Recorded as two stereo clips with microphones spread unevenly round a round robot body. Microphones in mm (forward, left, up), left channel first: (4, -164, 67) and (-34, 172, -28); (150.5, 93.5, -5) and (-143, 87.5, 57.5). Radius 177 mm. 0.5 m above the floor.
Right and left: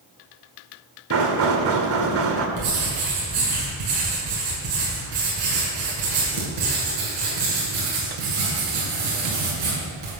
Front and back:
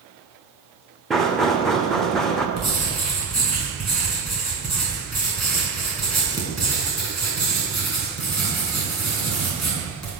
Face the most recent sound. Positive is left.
turn(degrees=90)